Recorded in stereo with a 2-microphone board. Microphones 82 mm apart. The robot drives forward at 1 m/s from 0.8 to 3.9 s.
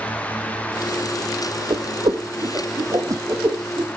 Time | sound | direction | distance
1.7 | a whoosh | 70° right (ahead or behind) | 2.5 m